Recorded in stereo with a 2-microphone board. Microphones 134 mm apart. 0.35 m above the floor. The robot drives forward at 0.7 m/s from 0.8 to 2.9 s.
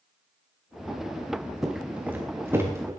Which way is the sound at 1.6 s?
5° right (ahead or behind).